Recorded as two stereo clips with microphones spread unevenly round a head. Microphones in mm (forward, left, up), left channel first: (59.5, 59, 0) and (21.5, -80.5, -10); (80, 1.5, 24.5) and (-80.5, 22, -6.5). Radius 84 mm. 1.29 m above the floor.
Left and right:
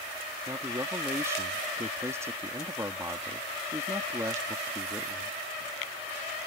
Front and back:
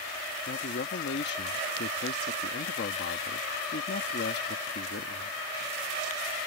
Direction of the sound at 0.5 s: 35° right.